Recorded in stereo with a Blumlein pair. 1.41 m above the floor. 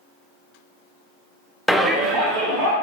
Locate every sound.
1.7 s a shout: straight ahead, 0.6 m; by 2.8 s 45° right, 1.8 m